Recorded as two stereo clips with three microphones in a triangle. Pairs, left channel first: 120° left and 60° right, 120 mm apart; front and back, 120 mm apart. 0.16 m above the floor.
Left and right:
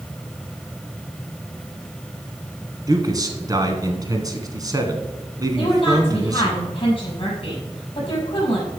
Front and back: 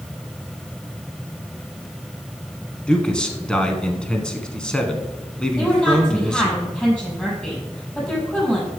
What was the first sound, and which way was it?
A man speaking, 75° right.